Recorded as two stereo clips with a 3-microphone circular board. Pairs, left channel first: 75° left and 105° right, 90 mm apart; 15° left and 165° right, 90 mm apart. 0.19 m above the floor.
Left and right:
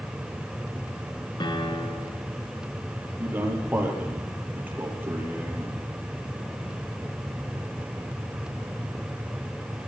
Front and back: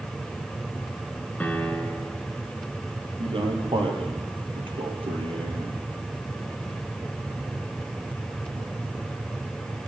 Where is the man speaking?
175° right, 5.5 m.